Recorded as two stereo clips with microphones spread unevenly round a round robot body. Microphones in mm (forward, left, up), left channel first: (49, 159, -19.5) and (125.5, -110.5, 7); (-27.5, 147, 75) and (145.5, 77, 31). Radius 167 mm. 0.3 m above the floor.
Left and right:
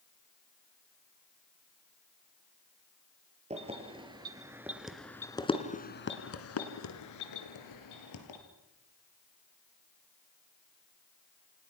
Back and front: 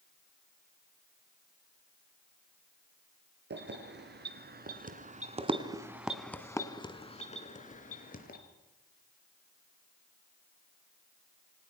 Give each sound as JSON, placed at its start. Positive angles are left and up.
{"t": 3.5, "sound": "keys jangling", "azimuth_deg": -5, "distance_m": 4.5}